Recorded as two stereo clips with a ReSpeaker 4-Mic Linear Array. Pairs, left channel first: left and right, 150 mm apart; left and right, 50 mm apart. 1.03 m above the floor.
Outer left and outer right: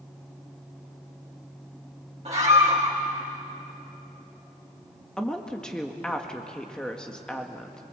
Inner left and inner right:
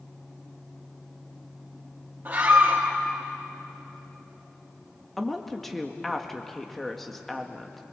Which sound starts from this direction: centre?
A woman speaking, at 5.2 s.